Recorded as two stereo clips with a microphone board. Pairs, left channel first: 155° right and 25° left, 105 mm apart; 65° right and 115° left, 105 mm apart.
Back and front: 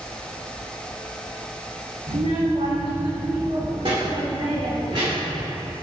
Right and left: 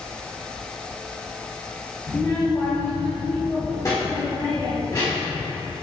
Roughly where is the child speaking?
Ahead.